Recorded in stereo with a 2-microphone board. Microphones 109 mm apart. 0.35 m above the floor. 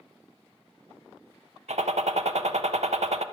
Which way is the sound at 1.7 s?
80° right.